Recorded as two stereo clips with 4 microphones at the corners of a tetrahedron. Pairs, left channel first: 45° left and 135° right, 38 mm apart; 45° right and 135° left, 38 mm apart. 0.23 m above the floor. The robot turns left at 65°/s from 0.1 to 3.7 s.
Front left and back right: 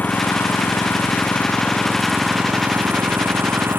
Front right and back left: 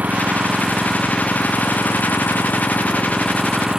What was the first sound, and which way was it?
An engine running, 85° left.